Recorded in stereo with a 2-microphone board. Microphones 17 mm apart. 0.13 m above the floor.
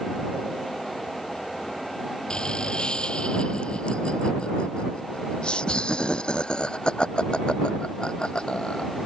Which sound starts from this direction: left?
Laughter, at 2.3 s.